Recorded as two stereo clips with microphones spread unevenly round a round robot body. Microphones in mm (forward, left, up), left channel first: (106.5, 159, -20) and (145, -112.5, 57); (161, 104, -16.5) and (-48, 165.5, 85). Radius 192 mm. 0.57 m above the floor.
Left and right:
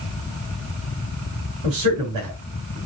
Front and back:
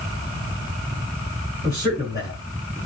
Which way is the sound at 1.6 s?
90° right.